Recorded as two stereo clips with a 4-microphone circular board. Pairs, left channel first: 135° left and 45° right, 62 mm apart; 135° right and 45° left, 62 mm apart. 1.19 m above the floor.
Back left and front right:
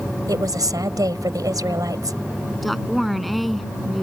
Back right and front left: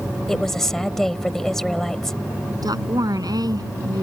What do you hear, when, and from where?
0.3 s a woman speaking: 50° right
2.6 s a woman speaking: 45° left